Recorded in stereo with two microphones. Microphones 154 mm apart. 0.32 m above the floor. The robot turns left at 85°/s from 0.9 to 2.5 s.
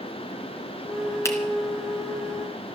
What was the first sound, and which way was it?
A finger snap, 20° left (ahead or behind).